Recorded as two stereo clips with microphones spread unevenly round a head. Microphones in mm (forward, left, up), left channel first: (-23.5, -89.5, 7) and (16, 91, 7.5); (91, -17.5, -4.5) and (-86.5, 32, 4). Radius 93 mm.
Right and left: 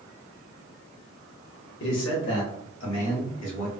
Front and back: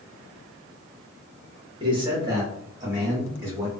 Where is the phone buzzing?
No phone buzzing in this recording.